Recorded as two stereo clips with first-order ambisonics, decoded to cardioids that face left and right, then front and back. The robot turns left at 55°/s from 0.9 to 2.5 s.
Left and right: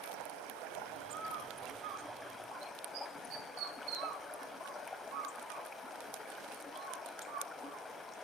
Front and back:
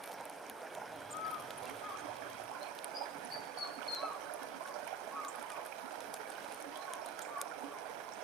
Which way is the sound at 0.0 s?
105° right.